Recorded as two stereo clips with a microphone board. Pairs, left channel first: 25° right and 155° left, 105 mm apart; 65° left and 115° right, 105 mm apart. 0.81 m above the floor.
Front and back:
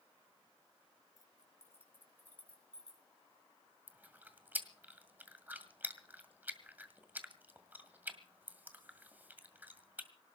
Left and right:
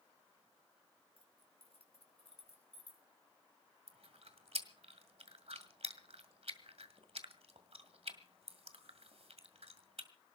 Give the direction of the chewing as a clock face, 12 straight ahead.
4 o'clock.